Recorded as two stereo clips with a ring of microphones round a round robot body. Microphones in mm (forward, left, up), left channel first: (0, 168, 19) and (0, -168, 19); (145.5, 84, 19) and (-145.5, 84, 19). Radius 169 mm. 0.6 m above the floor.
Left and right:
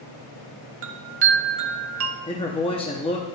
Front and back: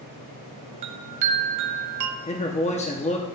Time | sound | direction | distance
0.8 | a chime | 145° right | 0.7 m
2.3 | a man speaking | 35° left | 0.9 m